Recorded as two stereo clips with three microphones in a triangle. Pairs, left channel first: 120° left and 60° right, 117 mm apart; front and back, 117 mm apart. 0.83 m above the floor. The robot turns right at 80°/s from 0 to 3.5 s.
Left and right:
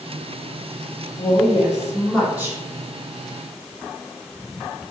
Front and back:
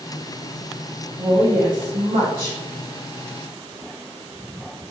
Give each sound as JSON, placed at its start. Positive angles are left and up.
{"t": 1.2, "sound": "a woman speaking", "azimuth_deg": 130, "distance_m": 1.8}